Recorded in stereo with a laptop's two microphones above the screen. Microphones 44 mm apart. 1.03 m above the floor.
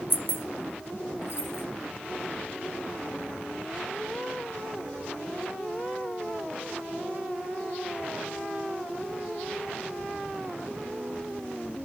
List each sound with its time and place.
0.1 s keys jangling: 50° left (ahead or behind), 0.6 m; by 1.6 s 80° left, 1.2 m